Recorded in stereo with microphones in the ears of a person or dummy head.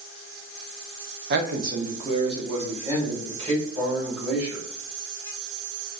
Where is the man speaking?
50° right (ahead or behind), 0.6 m; by 4.7 s 20° right (ahead or behind), 2.5 m.